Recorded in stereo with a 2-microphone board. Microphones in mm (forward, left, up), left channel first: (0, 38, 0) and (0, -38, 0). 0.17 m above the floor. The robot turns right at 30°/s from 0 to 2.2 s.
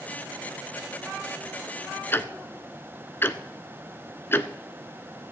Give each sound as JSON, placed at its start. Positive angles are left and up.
{"t": 2.1, "sound": "ticking", "side_deg": 30, "distance_m": 0.6}